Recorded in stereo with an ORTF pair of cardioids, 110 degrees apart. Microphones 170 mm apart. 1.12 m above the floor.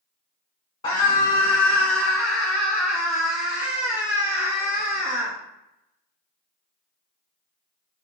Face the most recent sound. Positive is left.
turn(degrees=-40)